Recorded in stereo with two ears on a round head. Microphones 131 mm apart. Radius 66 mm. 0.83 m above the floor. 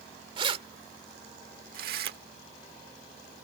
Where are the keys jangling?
35° right (ahead or behind); by 2.2 s 75° right (ahead or behind).